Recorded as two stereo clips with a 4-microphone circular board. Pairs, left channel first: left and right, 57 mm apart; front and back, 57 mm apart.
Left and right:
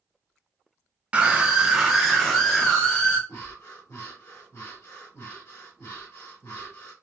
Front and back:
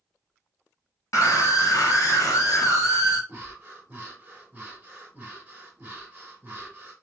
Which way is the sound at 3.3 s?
120° left.